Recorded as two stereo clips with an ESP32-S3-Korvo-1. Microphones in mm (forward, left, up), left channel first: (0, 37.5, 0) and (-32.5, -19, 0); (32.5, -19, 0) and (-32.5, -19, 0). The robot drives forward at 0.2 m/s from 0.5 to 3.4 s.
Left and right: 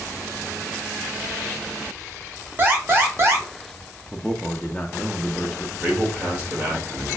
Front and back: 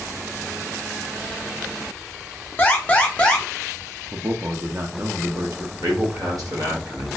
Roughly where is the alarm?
Ahead right.